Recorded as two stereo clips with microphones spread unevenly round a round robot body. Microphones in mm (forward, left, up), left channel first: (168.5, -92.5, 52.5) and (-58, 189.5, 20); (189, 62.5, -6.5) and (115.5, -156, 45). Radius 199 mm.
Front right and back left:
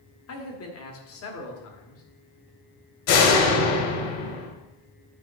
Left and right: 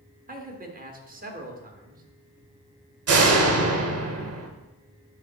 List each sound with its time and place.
0.3 s a man speaking: 65° right, 1.4 m
3.1 s a door slam: 80° right, 1.4 m